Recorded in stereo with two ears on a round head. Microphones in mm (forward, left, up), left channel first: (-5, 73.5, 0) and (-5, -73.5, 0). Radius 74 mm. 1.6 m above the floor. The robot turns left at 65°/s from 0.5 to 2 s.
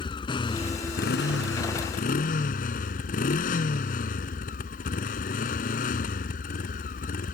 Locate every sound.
0.0 s a motorcycle: 150° left; by 7.3 s 55° left